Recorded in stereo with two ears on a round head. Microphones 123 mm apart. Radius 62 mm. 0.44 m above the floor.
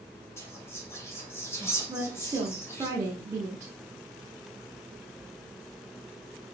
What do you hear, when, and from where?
0.4 s whispering: 20° left (ahead or behind), 1.8 m
1.9 s a woman speaking: 20° right (ahead or behind), 1.1 m